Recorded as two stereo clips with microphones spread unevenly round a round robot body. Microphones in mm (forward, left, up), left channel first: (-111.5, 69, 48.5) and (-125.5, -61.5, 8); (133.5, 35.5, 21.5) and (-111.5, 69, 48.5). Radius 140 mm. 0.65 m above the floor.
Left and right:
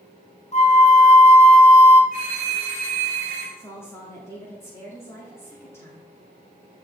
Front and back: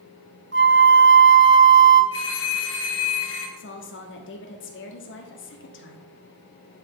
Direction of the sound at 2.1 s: 55° right.